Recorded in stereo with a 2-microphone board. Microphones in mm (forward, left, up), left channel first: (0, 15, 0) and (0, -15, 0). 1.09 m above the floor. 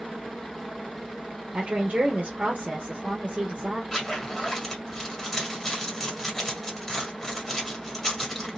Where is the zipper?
15° left (ahead or behind), 1.7 m.